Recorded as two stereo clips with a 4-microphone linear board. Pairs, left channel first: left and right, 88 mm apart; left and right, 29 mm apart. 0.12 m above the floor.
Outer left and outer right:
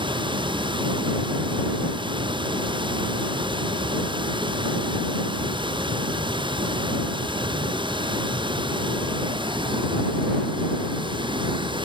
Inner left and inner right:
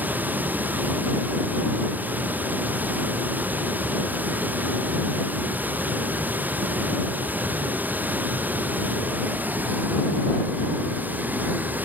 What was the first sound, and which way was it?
Running water, 90° right.